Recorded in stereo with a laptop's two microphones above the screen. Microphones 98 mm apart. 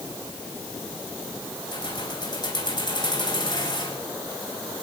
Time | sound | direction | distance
1.7 | keys jangling | 45° left (ahead or behind) | 4 m